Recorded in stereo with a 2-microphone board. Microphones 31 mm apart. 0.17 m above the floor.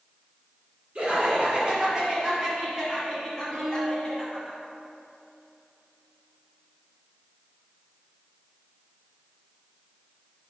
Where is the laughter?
40° right (ahead or behind), 1.7 m; by 4.5 s 20° left (ahead or behind), 1.6 m.